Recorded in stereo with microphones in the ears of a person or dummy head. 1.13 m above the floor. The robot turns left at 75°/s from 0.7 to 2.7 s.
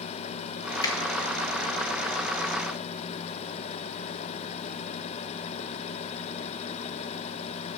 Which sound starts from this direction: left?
A finger snap, at 0.8 s.